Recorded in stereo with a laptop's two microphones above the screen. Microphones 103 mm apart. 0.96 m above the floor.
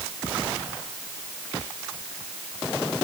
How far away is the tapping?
No tapping in this recording.